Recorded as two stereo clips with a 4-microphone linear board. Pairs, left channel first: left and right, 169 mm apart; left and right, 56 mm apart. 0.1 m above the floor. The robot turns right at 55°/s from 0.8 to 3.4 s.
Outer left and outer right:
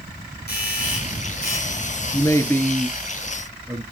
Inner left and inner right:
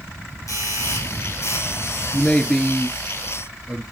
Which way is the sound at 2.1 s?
140° left.